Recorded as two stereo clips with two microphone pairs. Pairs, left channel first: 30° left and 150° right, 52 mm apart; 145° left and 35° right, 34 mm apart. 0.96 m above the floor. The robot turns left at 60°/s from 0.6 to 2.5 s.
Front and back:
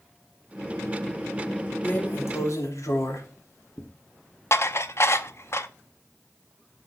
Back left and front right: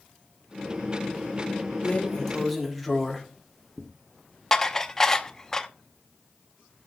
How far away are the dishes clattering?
About 0.7 m.